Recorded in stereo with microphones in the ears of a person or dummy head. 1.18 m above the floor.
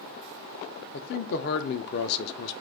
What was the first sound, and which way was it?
A man speaking, 50° left (ahead or behind).